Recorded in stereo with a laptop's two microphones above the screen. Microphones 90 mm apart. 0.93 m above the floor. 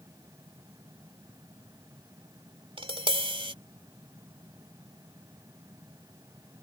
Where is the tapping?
85° right.